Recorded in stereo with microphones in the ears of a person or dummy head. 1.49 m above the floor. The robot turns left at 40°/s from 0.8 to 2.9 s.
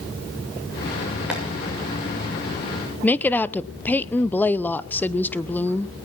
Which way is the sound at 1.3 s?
10° right (ahead or behind).